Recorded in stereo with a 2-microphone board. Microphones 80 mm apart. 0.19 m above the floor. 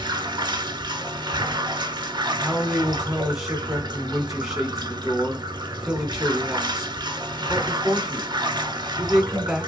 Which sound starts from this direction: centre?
A man speaking, at 2.4 s.